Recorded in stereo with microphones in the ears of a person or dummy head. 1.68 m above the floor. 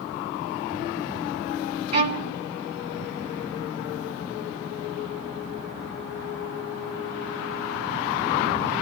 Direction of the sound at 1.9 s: 40° right (ahead or behind).